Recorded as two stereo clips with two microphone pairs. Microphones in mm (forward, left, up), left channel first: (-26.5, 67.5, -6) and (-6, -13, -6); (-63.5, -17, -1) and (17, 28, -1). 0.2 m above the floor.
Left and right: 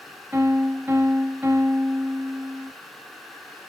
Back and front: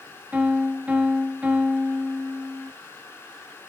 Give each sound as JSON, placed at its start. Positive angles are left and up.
{"t": 0.3, "sound": "a piano", "azimuth_deg": -30, "distance_m": 0.6}